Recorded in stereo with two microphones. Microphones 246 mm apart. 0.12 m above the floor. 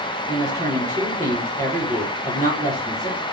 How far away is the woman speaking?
About 2.5 m.